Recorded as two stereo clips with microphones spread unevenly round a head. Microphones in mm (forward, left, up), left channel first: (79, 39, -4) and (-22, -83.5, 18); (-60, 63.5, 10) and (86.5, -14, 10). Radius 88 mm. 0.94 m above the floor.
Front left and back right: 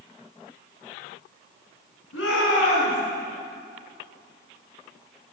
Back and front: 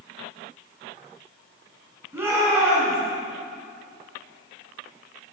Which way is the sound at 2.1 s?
50° left.